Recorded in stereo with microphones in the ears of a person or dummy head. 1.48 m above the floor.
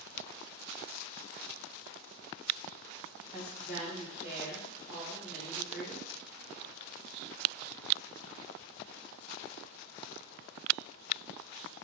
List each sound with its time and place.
3.3 s a woman speaking: 5° right (ahead or behind), 1.7 m